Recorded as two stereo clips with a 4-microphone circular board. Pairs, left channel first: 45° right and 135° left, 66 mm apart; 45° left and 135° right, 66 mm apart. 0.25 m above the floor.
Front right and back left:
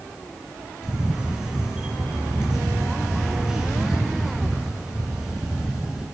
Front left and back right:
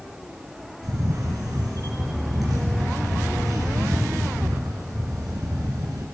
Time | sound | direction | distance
0.8 | a camera shutter | 150° right | 1.8 m